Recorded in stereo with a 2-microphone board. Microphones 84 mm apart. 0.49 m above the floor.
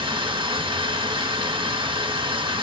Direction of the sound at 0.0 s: 80° right.